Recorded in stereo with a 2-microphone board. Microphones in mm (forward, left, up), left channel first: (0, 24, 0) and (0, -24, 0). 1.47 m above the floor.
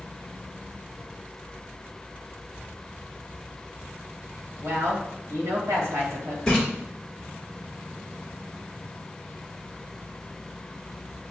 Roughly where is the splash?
Centre.